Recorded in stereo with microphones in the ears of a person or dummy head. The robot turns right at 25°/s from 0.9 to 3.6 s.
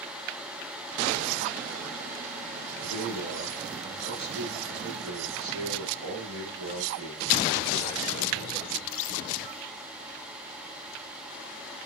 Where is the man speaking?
85° right, 2.5 m; by 8.6 s 70° right (ahead or behind), 2.5 m.